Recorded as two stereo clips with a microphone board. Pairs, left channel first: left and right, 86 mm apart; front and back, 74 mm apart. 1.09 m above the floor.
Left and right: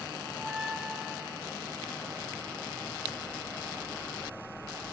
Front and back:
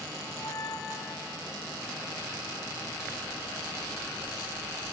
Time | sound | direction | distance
0.2 | a squeak | straight ahead | 1.8 m